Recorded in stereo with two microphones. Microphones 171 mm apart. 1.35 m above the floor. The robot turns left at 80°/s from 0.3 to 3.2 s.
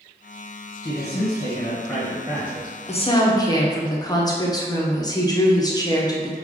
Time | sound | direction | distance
0.8 | a man speaking | 100° left | 1.0 m
2.9 | a woman speaking | 45° left (ahead or behind) | 0.6 m